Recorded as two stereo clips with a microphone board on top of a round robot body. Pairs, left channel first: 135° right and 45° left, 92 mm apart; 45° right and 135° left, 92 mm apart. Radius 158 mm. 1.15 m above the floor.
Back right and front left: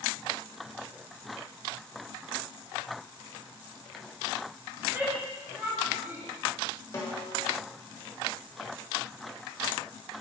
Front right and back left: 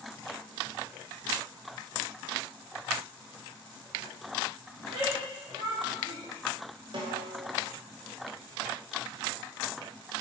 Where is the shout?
115° left, 3 m.